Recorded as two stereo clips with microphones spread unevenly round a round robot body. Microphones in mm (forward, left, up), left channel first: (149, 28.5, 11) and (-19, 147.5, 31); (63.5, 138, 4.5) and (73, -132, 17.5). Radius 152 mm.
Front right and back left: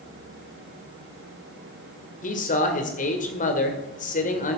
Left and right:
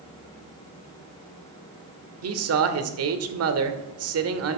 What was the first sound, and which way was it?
A man speaking, 75° right.